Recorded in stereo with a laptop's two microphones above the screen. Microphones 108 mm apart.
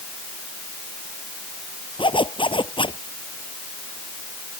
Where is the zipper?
50° left (ahead or behind).